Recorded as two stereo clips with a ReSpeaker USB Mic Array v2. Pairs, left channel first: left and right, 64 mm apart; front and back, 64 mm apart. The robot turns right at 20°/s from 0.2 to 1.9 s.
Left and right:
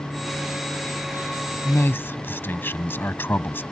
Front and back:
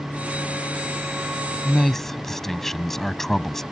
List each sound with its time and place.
1.6 s a man speaking: 75° left; by 3.6 s 80° left